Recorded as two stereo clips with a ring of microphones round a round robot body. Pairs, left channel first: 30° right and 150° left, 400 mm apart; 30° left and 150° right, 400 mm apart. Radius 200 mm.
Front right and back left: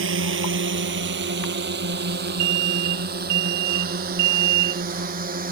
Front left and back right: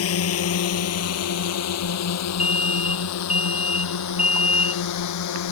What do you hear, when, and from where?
0.0 s a drone: 90° left; by 5.5 s 80° left
2.4 s an alarm: 125° left